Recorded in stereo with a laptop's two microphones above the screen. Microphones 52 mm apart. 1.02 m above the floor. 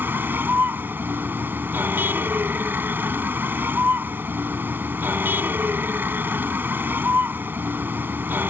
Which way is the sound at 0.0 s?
40° right (ahead or behind).